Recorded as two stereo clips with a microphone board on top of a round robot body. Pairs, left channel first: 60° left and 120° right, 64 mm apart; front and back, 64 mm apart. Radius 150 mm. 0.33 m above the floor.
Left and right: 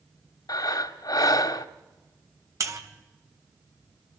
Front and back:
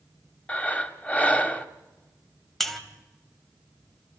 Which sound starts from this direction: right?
A buzzer, at 2.6 s.